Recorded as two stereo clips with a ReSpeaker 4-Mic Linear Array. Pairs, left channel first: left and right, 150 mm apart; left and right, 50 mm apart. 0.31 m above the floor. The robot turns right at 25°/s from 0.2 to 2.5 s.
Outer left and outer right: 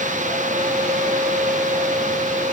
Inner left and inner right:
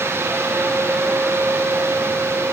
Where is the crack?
I don't hear a crack.